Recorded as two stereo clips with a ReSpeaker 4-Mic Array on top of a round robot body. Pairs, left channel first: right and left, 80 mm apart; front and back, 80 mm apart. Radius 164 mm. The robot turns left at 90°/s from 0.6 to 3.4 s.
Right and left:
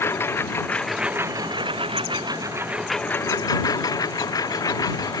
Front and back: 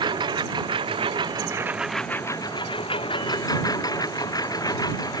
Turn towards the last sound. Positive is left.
turn(degrees=-45)